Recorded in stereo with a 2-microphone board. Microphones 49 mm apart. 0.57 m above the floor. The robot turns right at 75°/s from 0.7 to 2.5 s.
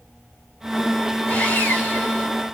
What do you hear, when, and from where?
1.3 s sawing: 70° left, 1.6 m; by 2.3 s 145° left, 1.6 m